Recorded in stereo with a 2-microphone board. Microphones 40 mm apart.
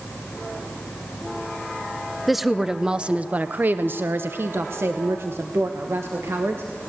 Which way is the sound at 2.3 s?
Centre (ahead or behind).